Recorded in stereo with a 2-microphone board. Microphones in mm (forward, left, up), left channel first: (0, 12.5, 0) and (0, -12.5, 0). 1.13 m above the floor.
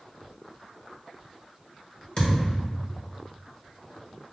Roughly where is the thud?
Left.